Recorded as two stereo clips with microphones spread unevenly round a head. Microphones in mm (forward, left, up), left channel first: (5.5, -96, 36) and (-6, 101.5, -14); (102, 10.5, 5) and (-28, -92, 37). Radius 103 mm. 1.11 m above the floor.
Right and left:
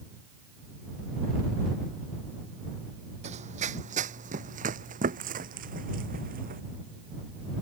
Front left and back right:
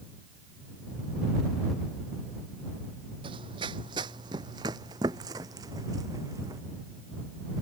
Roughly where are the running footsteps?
Behind left.